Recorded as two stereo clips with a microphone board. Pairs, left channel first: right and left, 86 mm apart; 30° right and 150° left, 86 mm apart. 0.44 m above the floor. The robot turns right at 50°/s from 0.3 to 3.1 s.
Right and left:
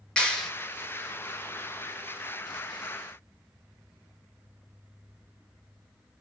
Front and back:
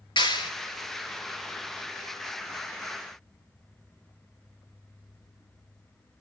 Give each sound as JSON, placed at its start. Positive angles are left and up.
{"t": 0.2, "sound": "a clap", "azimuth_deg": -10, "distance_m": 4.0}